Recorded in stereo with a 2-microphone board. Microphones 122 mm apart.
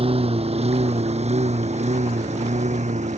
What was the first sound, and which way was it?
A lawn mower, 55° right (ahead or behind).